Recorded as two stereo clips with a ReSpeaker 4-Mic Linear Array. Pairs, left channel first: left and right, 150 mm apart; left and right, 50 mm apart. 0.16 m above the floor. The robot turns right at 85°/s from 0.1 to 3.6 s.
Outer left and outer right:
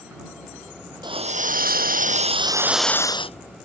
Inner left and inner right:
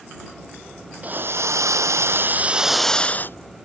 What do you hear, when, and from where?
1.0 s a hiss: 150° right; by 3.4 s 50° left